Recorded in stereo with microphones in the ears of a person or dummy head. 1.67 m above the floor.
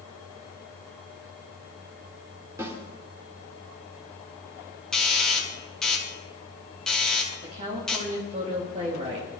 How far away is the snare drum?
About 4 m.